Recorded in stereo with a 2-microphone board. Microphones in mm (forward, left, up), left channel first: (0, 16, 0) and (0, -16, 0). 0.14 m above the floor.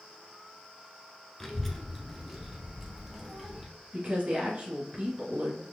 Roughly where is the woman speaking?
Right.